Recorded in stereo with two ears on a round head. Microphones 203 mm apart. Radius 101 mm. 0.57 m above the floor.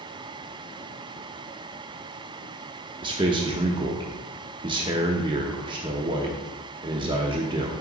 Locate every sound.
3.0 s a man speaking: 20° right (ahead or behind), 0.7 m